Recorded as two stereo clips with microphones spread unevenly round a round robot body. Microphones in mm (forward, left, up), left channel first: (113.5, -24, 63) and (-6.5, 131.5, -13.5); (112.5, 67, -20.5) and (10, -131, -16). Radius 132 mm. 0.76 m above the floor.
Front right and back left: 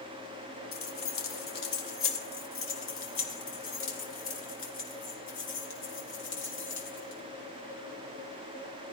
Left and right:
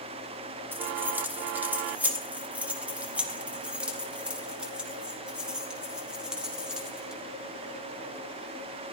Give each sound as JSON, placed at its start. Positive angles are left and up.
{"t": 0.7, "sound": "keys jangling", "azimuth_deg": -35, "distance_m": 2.0}